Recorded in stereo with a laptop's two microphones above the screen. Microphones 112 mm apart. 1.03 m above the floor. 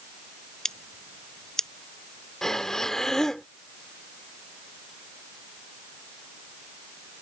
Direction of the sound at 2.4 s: 5° left (ahead or behind).